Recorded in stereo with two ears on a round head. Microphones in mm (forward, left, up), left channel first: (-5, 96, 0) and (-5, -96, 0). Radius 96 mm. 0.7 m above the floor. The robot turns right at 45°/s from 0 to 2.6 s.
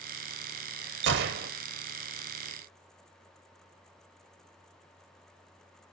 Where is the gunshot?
55° right (ahead or behind), 0.7 m; by 1.5 s 40° right (ahead or behind), 0.7 m.